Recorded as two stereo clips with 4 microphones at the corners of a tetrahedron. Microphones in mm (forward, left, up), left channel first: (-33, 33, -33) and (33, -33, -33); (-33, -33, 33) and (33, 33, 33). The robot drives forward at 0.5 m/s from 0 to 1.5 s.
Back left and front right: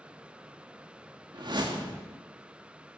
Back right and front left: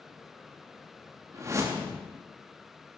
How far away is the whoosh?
About 2.5 m.